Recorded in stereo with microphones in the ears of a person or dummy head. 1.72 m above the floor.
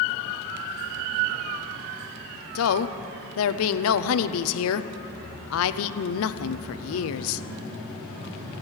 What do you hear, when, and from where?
2.5 s a woman speaking: 80° left, 0.7 m